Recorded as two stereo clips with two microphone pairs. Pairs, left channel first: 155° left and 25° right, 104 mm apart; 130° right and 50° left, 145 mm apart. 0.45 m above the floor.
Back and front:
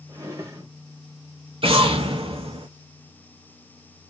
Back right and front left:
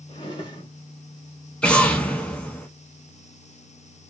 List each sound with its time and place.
0.1 s a drawer: 80° right, 1.0 m
1.6 s an explosion: 50° right, 0.8 m